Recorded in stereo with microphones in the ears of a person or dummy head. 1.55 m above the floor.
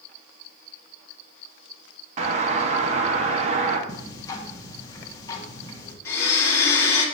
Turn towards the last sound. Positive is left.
turn(degrees=15)  # may be behind; listen again after turning